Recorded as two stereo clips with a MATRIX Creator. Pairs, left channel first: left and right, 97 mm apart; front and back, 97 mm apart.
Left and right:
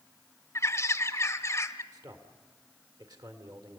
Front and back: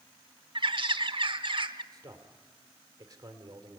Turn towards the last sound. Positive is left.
turn(degrees=-135)